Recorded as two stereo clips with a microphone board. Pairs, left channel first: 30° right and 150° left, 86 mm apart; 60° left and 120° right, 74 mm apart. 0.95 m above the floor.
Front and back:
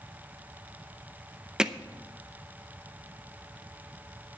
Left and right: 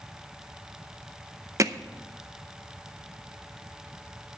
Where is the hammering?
130° right, 0.6 m.